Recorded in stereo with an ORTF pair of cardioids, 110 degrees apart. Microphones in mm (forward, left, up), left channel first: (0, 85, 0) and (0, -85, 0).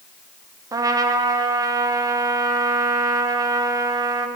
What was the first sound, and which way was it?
A trumpet, 20° right.